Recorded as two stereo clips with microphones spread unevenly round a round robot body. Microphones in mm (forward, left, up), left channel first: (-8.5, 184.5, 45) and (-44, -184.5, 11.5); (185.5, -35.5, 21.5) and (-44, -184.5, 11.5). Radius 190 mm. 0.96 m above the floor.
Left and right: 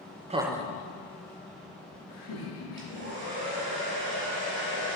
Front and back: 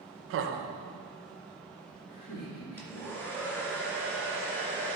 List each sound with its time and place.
0.3 s laughter: 160° right, 0.6 m; by 3.0 s 75° left, 2.5 m
2.8 s a hair dryer: 50° right, 2.5 m